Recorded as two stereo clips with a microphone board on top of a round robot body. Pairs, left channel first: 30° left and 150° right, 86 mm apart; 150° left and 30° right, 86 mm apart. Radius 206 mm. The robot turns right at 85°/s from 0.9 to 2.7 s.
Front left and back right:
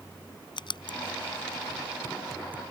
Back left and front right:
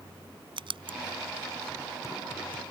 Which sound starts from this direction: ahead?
Writing, at 0.6 s.